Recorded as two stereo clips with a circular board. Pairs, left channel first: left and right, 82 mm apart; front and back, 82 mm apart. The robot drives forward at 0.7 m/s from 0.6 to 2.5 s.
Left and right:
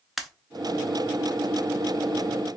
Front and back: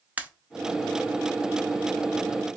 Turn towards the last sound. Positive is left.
turn(degrees=180)